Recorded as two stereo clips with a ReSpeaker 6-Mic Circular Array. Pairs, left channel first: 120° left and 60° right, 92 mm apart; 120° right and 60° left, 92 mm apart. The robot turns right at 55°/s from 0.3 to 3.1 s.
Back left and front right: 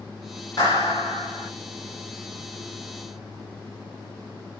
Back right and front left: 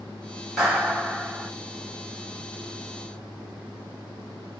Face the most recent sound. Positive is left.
turn(degrees=-70)